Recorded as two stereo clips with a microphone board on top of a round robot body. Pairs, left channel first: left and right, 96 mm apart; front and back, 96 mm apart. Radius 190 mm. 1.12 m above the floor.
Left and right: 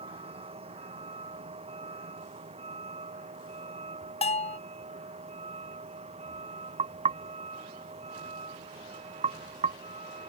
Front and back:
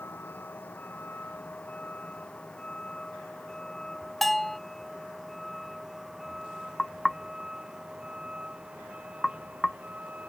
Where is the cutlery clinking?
I don't hear cutlery clinking.